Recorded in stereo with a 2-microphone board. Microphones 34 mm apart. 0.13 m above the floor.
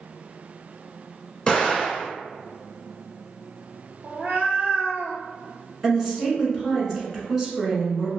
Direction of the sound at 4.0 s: 50° right (ahead or behind).